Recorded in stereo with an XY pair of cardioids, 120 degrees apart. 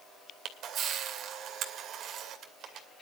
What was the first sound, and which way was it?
A camera shutter, 65° right.